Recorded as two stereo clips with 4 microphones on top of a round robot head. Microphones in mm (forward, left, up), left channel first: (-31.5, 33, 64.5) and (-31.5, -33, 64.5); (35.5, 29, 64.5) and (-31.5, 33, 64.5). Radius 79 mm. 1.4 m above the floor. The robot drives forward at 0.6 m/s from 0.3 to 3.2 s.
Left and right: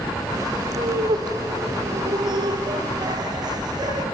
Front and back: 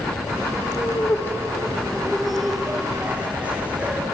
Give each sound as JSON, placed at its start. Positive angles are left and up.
{"t": 0.8, "sound": "laughter", "azimuth_deg": -65, "distance_m": 2.0}